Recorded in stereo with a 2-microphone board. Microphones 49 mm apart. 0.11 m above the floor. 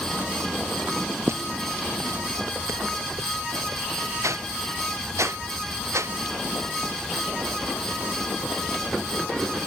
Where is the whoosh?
80° right.